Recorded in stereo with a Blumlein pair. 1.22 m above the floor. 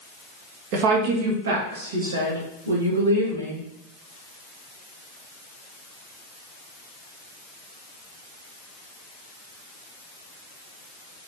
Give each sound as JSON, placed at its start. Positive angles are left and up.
{"t": 0.7, "sound": "a woman speaking", "azimuth_deg": -45, "distance_m": 1.9}